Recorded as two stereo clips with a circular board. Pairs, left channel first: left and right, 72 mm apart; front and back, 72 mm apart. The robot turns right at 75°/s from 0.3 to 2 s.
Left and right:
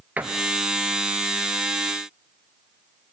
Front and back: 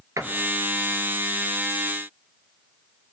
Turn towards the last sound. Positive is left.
turn(degrees=-30)